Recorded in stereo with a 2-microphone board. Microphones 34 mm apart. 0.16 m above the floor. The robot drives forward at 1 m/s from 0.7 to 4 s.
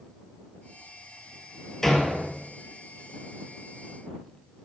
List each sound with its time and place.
1.8 s a door slam: 10° left (ahead or behind), 1.9 m